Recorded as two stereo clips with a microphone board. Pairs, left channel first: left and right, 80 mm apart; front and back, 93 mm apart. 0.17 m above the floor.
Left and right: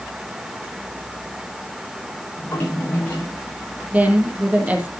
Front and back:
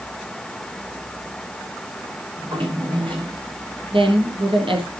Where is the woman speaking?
160° right, 4.5 m.